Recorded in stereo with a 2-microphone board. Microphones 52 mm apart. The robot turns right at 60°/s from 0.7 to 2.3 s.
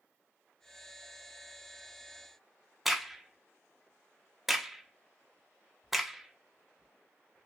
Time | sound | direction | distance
2.9 | a crack | 5° right (ahead or behind) | 0.6 m